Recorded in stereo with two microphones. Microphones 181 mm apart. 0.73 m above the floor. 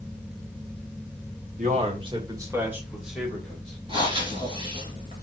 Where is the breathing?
30° right (ahead or behind), 3 m.